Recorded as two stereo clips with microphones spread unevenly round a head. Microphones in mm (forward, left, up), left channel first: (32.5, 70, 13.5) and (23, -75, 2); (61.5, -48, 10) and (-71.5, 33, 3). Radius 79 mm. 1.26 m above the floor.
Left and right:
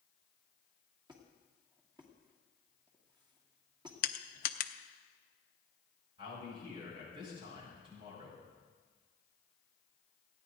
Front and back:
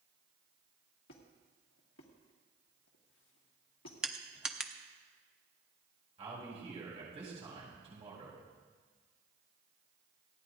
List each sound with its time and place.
1.1 s a squeak: 35° right, 2 m
4.0 s crushing: 65° left, 0.7 m
6.2 s a man speaking: 155° right, 6.5 m